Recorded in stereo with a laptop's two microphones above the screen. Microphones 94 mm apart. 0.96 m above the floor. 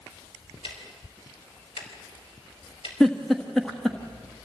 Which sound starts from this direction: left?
Ticking, at 0.6 s.